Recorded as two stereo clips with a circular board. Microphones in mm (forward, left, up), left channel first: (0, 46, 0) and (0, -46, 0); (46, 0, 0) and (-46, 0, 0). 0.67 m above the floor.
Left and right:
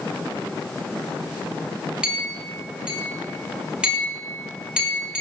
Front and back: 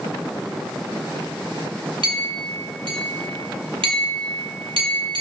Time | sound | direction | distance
2.0 | a clink | 170° right | 1.6 m